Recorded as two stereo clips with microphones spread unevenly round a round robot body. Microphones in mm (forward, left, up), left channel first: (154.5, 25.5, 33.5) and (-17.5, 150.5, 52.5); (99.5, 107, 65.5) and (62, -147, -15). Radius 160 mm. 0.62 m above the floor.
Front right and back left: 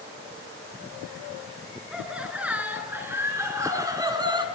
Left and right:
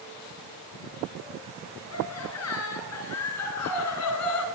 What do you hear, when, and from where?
1.9 s laughter: 55° left, 8.5 m; by 4.5 s 75° left, 6.5 m